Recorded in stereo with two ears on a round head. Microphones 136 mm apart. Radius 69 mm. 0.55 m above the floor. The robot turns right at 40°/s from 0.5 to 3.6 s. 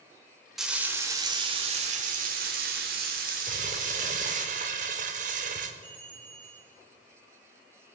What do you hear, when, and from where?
0.6 s frying: 175° right, 1.6 m; by 4.5 s 55° right, 1.6 m
3.5 s crumpling: 55° right (ahead or behind), 0.9 m; by 5.7 s 50° right (ahead or behind), 0.9 m
5.8 s a bell: 35° right (ahead or behind), 5 m